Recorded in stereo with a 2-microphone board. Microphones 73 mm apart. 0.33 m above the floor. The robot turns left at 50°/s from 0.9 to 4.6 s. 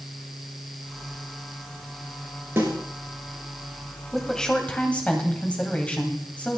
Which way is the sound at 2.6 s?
30° right (ahead or behind).